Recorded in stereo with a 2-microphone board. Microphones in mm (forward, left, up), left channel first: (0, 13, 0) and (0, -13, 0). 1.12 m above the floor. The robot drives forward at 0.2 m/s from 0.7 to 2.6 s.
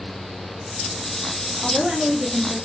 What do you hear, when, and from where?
1.6 s a woman speaking: 20° right (ahead or behind), 0.8 m; by 2.6 s 15° right (ahead or behind), 1.0 m